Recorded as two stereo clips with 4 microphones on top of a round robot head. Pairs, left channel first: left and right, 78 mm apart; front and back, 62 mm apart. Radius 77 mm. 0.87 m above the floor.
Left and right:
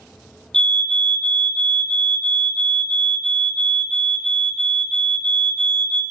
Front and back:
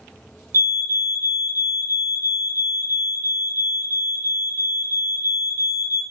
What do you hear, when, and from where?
0.5 s a fire alarm: 170° left, 2.5 m